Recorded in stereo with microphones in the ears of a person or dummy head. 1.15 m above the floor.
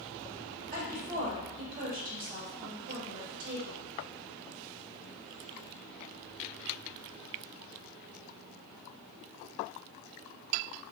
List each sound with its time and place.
0.7 s a woman speaking: 45° right (ahead or behind), 1.6 m